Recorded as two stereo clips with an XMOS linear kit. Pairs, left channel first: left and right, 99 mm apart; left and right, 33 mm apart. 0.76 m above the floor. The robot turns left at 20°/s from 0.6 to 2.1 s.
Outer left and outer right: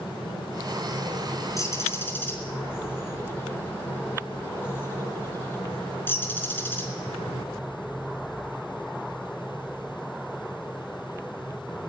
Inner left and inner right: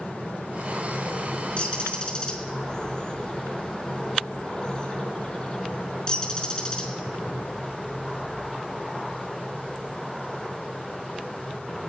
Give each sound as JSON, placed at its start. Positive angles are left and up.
{"t": 1.6, "sound": "a bird", "side_deg": 35, "distance_m": 4.5}